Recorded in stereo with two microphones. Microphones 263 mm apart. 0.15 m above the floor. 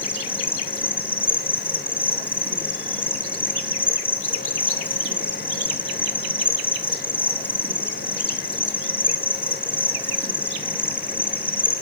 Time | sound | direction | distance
0.0 | an insect | 5° left (ahead or behind) | 2.5 m